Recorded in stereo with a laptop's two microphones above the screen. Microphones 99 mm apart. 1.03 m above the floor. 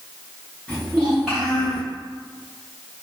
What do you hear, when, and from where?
0.7 s a child speaking: 15° left (ahead or behind), 0.9 m; by 1.8 s 5° right (ahead or behind), 2 m